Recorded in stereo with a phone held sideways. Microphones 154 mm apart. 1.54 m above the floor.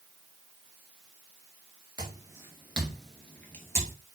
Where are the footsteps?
25° right (ahead or behind), 1.6 m; by 4.0 s 20° left (ahead or behind), 1.8 m.